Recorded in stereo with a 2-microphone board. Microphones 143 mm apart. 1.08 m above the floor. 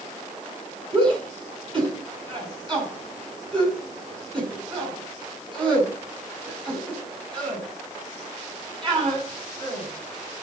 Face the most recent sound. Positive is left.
turn(degrees=-35)  # may be behind; listen again after turning